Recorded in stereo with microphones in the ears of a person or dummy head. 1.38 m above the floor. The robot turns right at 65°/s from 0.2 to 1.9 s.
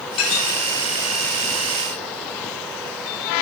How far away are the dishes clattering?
About 2 m.